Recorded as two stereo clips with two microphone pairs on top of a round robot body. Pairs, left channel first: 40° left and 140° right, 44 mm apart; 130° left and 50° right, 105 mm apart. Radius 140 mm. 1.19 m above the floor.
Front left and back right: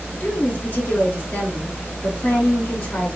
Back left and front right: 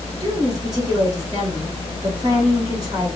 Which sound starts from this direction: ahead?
A woman speaking, at 0.2 s.